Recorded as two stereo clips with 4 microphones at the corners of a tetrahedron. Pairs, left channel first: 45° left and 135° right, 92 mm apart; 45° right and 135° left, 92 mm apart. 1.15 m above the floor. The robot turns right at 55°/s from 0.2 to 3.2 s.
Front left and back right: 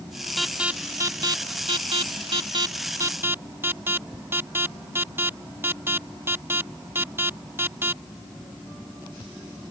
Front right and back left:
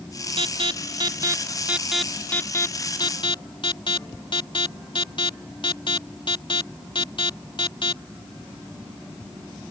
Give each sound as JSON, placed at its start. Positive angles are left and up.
{"t": 0.4, "sound": "an alarm", "azimuth_deg": 135}